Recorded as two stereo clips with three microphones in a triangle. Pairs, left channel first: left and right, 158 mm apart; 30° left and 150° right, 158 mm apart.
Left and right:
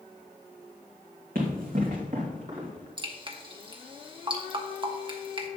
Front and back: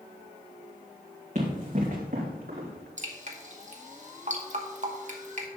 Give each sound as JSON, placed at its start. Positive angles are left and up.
{"t": 1.4, "sound": "running footsteps", "azimuth_deg": -110, "distance_m": 3.5}
{"t": 3.0, "sound": "dripping", "azimuth_deg": -140, "distance_m": 1.1}